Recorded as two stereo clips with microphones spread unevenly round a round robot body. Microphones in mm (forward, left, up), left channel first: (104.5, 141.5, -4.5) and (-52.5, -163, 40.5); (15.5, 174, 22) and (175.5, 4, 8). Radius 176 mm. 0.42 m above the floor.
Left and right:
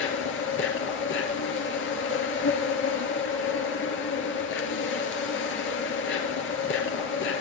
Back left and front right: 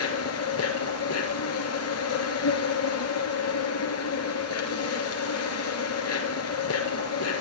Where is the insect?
120° left, 4.5 m.